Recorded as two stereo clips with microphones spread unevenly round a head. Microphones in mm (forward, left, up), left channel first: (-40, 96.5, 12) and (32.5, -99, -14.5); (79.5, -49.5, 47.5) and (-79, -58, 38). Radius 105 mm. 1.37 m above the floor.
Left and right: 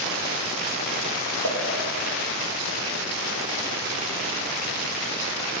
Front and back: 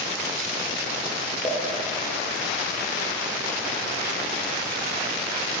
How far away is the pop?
About 2 m.